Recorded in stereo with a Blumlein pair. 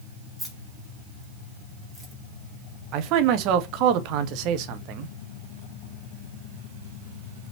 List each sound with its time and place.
0.4 s keys jangling: straight ahead, 3 m; by 2.1 s 10° right, 2 m
2.9 s a man speaking: 40° right, 0.8 m